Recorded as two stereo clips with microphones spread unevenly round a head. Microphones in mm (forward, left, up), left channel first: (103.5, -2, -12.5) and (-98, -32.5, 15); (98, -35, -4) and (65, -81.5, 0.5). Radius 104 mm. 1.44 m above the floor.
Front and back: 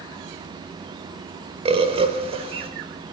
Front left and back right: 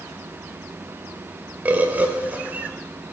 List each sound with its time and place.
1.6 s a bird: 145° right, 1.4 m